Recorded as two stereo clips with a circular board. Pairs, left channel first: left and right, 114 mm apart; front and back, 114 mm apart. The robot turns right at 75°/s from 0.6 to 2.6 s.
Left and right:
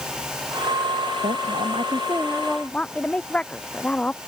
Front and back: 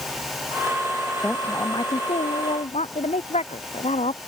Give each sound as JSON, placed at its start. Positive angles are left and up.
{"t": 1.2, "sound": "a woman speaking", "azimuth_deg": -95}